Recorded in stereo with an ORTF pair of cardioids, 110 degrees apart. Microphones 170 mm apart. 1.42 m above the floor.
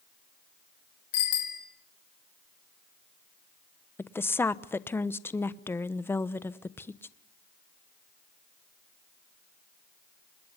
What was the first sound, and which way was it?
A bicycle bell, 65° left.